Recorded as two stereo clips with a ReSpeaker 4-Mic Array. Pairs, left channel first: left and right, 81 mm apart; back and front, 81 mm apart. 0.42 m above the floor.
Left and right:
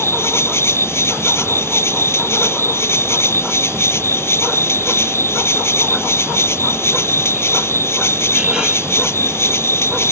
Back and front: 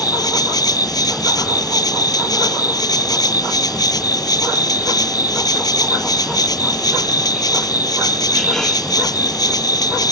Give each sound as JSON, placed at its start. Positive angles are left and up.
{"t": 0.0, "sound": "an insect", "azimuth_deg": 145}